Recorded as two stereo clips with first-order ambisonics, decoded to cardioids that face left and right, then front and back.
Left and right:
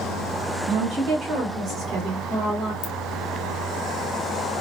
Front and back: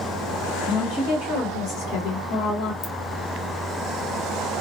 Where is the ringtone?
65° left, 0.7 m.